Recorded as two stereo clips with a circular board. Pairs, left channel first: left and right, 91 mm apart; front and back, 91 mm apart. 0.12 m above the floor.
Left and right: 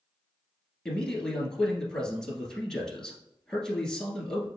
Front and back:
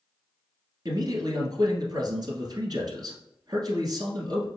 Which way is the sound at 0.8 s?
170° left.